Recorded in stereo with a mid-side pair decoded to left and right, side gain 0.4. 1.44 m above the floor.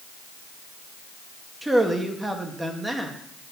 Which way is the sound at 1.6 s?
15° right.